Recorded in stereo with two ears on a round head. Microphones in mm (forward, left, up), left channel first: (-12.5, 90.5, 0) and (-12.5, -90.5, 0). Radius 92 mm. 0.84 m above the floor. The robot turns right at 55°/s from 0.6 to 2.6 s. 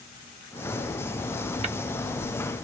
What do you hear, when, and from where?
1.6 s tapping: 35° right (ahead or behind), 0.8 m; by 1.8 s 30° right (ahead or behind), 0.8 m